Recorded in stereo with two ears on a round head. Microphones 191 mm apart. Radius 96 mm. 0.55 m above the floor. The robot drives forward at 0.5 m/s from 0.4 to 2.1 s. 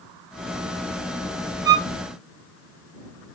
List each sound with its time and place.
1.6 s a violin: 20° right (ahead or behind), 2 m